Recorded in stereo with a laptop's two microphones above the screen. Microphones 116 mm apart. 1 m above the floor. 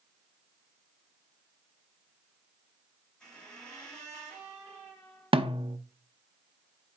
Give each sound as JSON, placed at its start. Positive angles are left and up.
{"t": 3.2, "sound": "a squeak", "side_deg": 5, "distance_m": 3.0}
{"t": 5.3, "sound": "a snare drum", "side_deg": -50, "distance_m": 0.6}